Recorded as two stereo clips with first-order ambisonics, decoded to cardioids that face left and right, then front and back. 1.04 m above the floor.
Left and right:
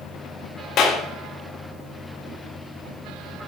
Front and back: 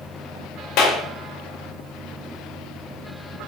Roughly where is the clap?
Ahead left.